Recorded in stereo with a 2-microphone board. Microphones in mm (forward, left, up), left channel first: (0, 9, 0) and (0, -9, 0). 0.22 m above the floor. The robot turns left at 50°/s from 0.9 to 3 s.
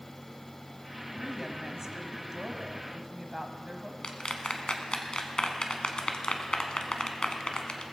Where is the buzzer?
No buzzer in this recording.